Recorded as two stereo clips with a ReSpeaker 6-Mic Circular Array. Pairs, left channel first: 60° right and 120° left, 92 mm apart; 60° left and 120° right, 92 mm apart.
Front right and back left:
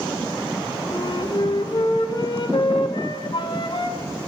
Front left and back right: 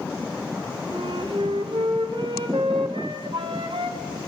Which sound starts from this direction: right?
A flute, at 0.9 s.